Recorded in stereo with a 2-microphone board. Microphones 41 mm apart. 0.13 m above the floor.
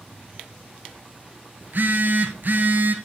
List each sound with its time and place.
1.6 s a phone buzzing: 50° right (ahead or behind), 1.4 m